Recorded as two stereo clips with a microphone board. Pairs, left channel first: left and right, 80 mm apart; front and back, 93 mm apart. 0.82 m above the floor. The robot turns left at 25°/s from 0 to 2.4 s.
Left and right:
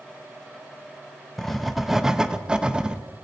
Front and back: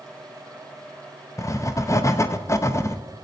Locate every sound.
1.4 s writing: 10° left, 0.6 m; by 3.0 s 15° right, 0.6 m